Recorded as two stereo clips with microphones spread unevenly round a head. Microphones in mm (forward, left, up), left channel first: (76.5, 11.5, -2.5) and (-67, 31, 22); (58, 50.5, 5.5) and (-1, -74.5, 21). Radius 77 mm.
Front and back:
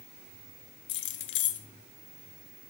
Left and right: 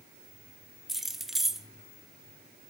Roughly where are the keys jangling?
Ahead right.